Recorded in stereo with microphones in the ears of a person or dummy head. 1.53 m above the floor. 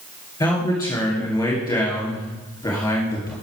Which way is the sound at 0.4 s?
15° left (ahead or behind).